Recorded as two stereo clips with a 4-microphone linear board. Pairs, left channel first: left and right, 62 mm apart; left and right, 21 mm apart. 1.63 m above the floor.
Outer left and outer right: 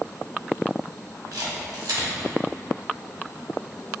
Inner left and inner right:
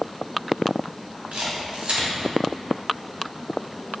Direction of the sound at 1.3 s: 75° right (ahead or behind).